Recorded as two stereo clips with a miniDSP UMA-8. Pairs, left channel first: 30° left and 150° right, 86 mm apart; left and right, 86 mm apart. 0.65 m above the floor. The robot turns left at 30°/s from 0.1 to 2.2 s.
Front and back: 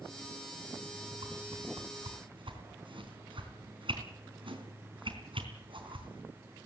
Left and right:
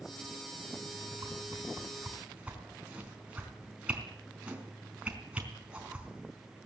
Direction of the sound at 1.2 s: 135° right.